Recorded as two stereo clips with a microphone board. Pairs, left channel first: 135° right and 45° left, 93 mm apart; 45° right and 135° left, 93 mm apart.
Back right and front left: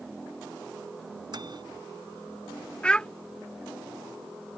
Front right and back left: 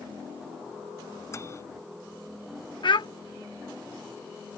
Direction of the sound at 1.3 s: 10° left.